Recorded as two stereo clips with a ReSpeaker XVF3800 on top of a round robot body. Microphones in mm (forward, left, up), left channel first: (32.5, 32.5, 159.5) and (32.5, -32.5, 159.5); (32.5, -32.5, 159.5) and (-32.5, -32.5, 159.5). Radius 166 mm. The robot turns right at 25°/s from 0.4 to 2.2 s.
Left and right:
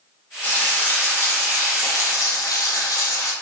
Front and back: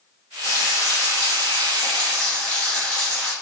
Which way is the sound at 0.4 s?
30° left.